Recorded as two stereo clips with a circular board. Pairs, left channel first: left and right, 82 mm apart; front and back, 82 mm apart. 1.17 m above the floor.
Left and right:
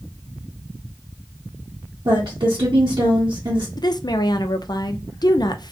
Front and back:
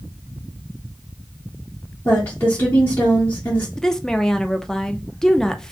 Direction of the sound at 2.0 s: 60° right.